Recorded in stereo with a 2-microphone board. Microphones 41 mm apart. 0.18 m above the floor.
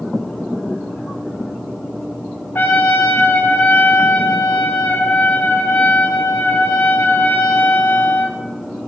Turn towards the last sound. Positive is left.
turn(degrees=55)  # may be behind; listen again after turning